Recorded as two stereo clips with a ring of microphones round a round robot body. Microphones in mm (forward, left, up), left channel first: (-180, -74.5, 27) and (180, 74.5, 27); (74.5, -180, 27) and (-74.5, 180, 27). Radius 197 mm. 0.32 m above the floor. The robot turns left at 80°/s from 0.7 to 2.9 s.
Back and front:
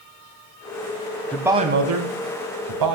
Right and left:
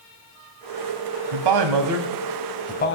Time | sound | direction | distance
1.3 | a man speaking | 120° left | 2 m